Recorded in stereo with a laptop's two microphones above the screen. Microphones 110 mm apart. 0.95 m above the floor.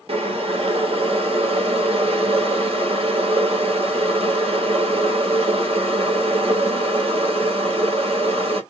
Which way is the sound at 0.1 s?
60° right (ahead or behind).